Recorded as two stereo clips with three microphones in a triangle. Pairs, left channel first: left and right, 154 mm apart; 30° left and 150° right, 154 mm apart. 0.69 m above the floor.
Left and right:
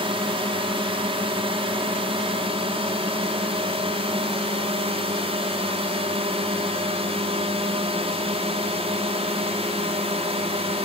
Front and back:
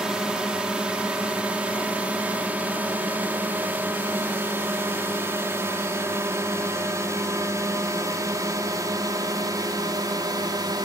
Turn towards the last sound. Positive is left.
turn(degrees=-100)